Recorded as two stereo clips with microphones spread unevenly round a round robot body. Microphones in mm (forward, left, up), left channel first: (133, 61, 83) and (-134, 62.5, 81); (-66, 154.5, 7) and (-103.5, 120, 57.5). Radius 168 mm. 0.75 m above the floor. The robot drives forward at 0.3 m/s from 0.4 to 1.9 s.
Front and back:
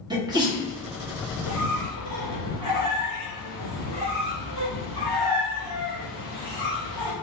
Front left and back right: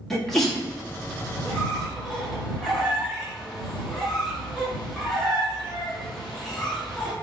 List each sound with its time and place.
0.1 s a sneeze: 105° left, 1.5 m; by 0.6 s 110° left, 1.5 m
1.4 s a squeak: 175° left, 1.2 m